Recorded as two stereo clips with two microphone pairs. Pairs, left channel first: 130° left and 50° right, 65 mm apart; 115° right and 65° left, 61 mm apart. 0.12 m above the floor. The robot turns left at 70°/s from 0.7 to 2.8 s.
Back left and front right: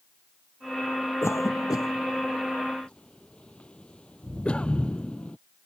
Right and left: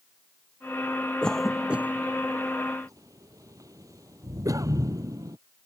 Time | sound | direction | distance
1.2 | a cough | 170° left | ?